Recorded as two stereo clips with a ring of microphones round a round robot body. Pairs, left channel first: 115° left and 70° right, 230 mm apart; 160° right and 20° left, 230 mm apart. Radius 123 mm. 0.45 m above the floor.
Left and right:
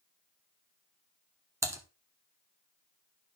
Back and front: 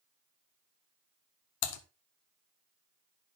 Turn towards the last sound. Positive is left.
turn(degrees=-145)